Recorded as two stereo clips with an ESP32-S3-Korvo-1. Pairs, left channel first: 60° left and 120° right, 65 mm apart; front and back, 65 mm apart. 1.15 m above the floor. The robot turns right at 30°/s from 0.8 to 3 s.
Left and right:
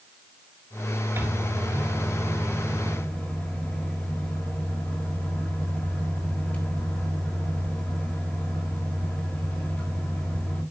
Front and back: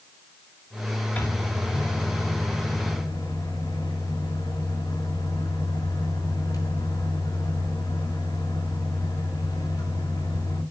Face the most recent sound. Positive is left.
turn(degrees=-10)